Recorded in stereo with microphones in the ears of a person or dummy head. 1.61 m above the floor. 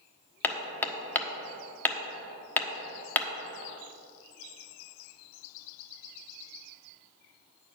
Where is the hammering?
10° left (ahead or behind), 1.1 m.